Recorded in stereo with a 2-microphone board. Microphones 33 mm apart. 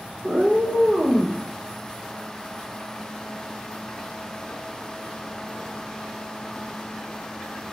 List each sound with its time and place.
0.2 s a cat meowing: 45° right (ahead or behind), 0.8 m; by 1.4 s 75° right (ahead or behind), 2.5 m